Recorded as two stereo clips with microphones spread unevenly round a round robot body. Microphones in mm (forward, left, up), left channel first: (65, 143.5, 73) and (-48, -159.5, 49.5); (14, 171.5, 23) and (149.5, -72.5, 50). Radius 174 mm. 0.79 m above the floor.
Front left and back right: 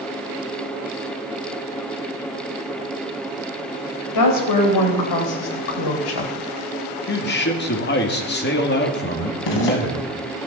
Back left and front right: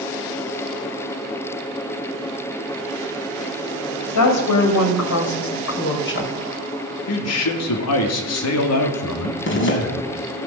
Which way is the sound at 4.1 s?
105° left.